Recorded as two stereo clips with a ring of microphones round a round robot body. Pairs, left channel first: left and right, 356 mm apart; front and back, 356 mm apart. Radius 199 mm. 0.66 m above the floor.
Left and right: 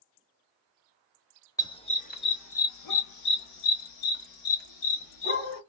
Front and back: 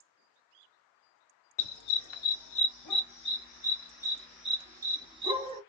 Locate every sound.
1.6 s a dog barking: 10° left, 1.1 m; by 5.6 s 105° left, 1.8 m